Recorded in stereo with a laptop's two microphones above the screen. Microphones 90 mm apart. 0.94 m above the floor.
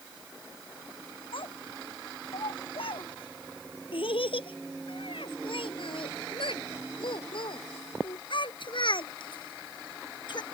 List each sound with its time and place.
1.3 s a child speaking: 75° left (ahead or behind); by 10.4 s 55° left (ahead or behind)